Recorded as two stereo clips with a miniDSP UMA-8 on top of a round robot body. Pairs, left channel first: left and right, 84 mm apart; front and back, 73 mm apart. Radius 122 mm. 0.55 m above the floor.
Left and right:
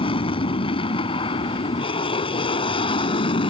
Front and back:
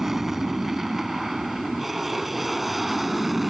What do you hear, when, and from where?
0.0 s an aircraft: 95° left; by 3.5 s 90° left